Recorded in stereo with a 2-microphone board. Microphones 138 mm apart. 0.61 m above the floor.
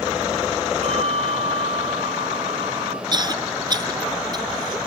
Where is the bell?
55° right (ahead or behind).